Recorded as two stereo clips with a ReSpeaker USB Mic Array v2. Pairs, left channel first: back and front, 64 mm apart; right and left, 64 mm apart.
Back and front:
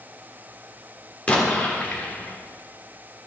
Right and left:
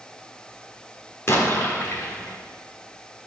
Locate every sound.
1.3 s an explosion: 120° right, 1.6 m